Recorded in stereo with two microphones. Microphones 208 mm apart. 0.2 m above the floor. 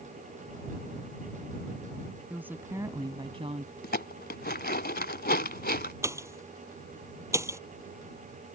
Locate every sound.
2.3 s a woman speaking: 5° right (ahead or behind); by 3.7 s 35° right (ahead or behind)
3.8 s dishes clattering: 50° left (ahead or behind)
6.0 s a pop: 15° right (ahead or behind)